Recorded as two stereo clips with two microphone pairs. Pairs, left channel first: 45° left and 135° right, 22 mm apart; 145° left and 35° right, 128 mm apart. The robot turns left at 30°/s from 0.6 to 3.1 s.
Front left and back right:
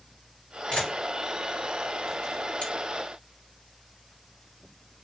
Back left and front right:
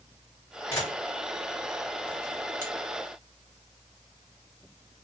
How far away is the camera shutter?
About 1.9 m.